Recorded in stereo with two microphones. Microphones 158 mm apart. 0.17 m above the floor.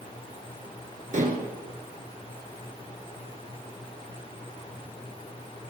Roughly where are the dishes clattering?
Right.